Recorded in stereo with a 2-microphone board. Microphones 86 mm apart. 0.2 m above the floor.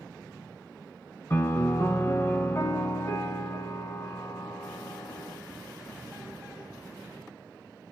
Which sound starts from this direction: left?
A piano, at 1.3 s.